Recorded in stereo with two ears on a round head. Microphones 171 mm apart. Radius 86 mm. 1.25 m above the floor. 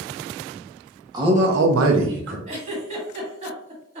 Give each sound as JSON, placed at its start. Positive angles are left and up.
{"t": 1.1, "sound": "a man speaking", "side_deg": -20, "distance_m": 1.0}
{"t": 2.5, "sound": "a giggle", "side_deg": -35, "distance_m": 1.3}